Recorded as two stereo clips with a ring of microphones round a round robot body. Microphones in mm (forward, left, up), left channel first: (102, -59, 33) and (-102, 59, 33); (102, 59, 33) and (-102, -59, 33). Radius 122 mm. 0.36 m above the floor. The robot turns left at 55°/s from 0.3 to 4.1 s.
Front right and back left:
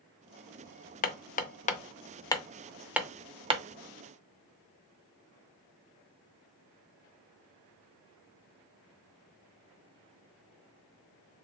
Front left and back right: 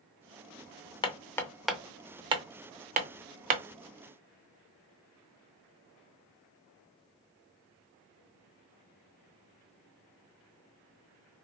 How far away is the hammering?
About 0.6 m.